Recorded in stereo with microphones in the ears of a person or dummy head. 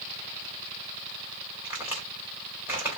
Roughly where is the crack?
Centre.